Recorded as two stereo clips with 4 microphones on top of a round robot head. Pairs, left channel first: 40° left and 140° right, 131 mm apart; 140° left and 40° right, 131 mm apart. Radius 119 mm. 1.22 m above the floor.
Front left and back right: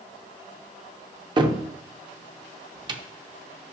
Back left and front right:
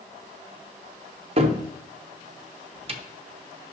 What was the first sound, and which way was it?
A cupboard door, 85° right.